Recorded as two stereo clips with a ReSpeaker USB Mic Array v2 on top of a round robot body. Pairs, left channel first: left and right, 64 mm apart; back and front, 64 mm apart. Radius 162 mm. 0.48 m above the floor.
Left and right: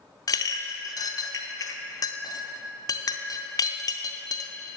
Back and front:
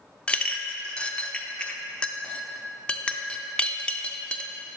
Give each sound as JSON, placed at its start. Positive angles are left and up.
{"t": 0.3, "sound": "a clink", "azimuth_deg": 105, "distance_m": 0.5}